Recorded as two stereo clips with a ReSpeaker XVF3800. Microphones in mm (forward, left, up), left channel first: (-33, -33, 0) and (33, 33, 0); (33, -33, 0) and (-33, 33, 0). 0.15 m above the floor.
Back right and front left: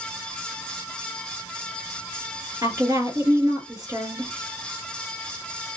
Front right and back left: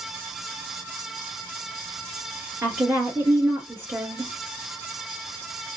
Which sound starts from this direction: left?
A woman speaking, at 2.6 s.